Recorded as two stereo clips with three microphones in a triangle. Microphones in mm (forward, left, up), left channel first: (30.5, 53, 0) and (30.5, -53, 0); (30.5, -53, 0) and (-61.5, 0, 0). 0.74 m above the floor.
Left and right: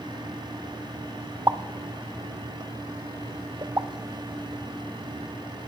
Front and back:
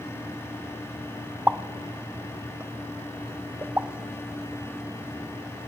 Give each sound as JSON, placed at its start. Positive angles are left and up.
{"t": 1.5, "sound": "a pop", "azimuth_deg": -145, "distance_m": 0.5}